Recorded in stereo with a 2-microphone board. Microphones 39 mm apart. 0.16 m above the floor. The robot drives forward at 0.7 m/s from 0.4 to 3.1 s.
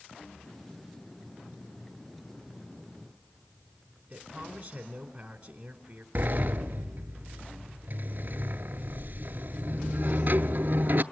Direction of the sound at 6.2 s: 50° right (ahead or behind).